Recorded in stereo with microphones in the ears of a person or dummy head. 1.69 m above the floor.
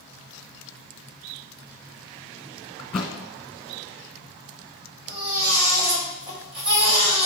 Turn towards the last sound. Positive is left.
turn(degrees=-50)  # may be behind; listen again after turning